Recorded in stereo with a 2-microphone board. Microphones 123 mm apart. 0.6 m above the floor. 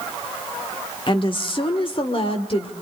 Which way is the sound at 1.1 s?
40° left (ahead or behind).